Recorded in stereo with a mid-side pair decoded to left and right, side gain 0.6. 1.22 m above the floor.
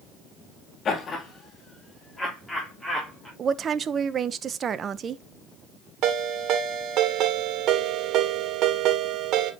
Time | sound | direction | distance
0.8 | laughter | 40° left | 2.5 m
3.4 | a woman speaking | 40° right | 0.8 m
6.0 | a ringtone | 60° right | 2 m